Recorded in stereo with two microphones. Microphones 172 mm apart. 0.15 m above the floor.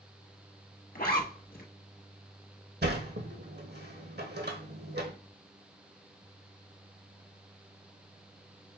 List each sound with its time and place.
0.9 s a zipper: 60° left (ahead or behind), 1.2 m
2.8 s a sliding door: 80° right, 1.0 m